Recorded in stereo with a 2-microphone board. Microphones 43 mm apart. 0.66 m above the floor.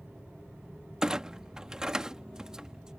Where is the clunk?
15° right (ahead or behind).